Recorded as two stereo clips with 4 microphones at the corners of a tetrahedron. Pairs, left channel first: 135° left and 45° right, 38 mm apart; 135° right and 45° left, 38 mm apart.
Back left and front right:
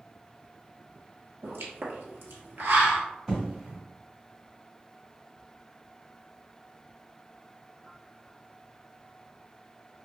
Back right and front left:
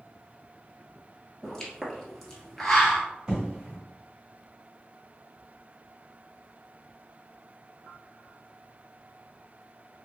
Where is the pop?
55° right, 0.9 m.